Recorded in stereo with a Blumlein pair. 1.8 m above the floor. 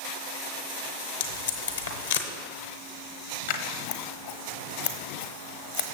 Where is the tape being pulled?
65° left, 1.1 m.